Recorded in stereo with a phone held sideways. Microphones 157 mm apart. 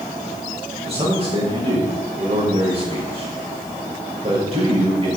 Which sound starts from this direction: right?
A man speaking, at 0.9 s.